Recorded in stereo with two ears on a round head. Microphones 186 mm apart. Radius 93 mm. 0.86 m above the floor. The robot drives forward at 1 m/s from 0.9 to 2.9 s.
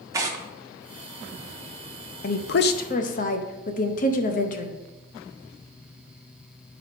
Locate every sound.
0.1 s tearing paper: 15° right (ahead or behind), 0.7 m
2.2 s a woman speaking: 45° left (ahead or behind), 0.6 m; by 4.8 s 40° left (ahead or behind), 0.7 m